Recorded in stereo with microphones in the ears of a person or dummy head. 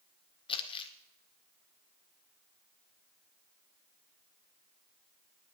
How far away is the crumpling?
About 1.5 m.